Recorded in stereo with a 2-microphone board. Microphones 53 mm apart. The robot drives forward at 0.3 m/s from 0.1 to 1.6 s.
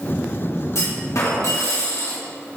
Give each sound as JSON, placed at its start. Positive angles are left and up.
{"t": 0.8, "sound": "a clunk", "side_deg": 70, "distance_m": 2.5}